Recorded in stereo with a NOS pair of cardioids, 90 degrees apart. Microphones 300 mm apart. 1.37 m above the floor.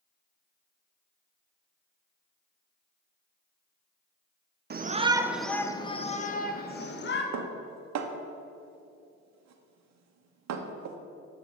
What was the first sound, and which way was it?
A shout, 35° right.